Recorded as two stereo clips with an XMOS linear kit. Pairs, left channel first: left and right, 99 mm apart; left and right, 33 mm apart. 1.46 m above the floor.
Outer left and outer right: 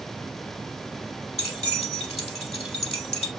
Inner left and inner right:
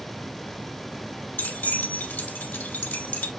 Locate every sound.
1.4 s keys jangling: 75° left (ahead or behind), 2.5 m